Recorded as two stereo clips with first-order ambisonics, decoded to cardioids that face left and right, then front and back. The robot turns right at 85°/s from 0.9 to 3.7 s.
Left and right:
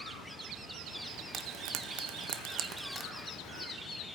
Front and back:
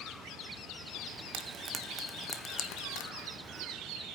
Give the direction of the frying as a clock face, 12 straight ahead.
5 o'clock.